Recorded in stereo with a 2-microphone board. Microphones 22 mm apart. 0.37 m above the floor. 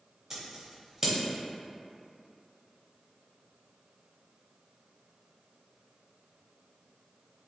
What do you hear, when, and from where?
0.3 s scissors: 20° right (ahead or behind), 0.8 m